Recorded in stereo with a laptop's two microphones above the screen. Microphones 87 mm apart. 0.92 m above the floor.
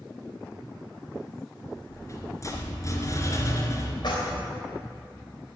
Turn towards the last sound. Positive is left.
turn(degrees=60)  # may be behind; listen again after turning